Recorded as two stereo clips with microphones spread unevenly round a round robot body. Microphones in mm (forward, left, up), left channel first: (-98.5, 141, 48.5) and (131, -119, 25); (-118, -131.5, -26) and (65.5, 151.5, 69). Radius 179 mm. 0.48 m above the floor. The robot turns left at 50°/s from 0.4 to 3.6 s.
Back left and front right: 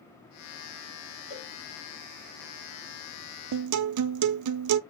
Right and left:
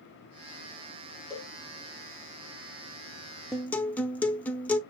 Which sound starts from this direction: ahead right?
A guitar, at 3.5 s.